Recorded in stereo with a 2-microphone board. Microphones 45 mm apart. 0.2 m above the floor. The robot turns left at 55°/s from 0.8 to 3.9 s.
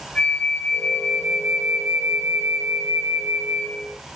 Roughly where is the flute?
Ahead left.